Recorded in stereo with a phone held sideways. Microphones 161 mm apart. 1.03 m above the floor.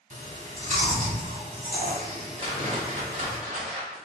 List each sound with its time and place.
0.1 s chewing: 50° right (ahead or behind), 1.2 m
2.4 s a whoosh: 45° right (ahead or behind), 0.8 m